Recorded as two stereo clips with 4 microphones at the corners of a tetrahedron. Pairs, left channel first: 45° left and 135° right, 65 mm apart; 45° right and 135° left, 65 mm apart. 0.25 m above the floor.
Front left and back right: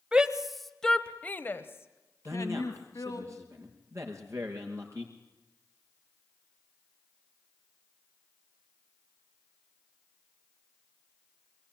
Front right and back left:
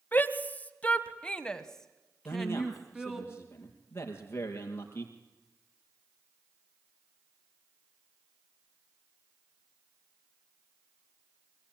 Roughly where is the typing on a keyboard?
No typing on a keyboard in this recording.